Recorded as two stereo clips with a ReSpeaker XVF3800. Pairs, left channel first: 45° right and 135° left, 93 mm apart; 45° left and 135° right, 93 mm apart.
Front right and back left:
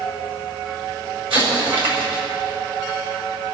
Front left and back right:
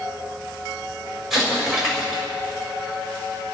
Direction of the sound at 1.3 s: 140° left.